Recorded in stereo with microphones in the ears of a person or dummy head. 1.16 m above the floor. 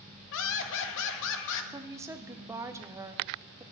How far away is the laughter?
About 1.6 m.